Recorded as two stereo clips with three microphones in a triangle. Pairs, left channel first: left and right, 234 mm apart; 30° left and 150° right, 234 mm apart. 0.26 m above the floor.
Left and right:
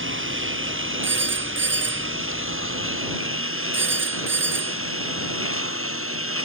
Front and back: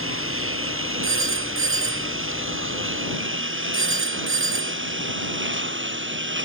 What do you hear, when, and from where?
0.0 s a lawn mower: 120° right; by 6.5 s 115° right
1.0 s a phone ringing: 125° right